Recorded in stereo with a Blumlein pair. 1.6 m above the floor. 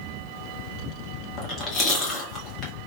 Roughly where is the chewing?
Ahead left.